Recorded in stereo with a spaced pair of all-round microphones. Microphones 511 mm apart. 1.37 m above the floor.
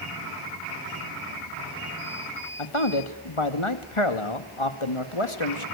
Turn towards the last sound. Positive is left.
turn(degrees=70)  # may be behind; listen again after turning